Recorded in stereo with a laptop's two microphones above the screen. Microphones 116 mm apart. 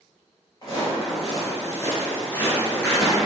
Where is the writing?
I don't hear writing.